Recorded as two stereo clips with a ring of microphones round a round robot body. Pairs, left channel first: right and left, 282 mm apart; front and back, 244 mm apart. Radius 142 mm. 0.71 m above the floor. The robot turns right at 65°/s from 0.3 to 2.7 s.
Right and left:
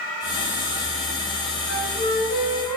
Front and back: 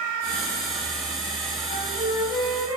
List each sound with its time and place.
1.7 s a flute: 70° right, 1.7 m; by 2.8 s 5° right, 1.7 m